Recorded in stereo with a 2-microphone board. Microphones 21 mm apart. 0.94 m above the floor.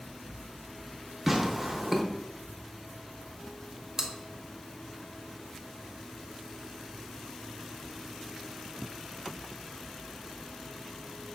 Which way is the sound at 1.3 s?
5° right (ahead or behind).